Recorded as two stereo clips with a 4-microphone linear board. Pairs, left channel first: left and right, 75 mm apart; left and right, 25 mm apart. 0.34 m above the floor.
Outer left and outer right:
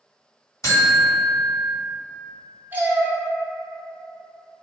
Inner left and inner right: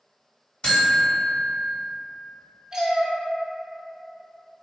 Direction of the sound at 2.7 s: 25° right (ahead or behind).